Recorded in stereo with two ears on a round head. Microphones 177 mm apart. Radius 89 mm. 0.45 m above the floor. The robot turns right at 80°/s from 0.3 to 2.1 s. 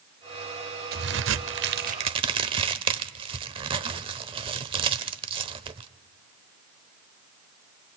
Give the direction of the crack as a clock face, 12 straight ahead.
4 o'clock.